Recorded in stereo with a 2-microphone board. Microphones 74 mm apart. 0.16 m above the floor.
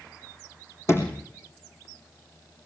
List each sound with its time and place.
0.9 s a sliding door: 35° left (ahead or behind), 4.5 m